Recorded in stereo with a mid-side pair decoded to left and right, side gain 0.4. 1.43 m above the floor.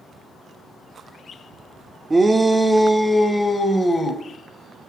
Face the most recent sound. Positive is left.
turn(degrees=35)